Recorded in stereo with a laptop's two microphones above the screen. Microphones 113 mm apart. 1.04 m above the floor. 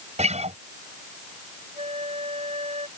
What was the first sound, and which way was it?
A guitar, 85° right.